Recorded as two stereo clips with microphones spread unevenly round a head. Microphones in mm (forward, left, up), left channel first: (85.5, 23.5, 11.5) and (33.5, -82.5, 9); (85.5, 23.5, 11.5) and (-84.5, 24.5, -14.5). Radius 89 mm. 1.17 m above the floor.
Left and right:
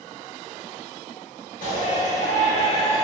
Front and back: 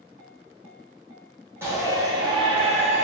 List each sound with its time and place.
1.6 s a shout: 105° left, 1.7 m; by 3.0 s 130° left, 1.3 m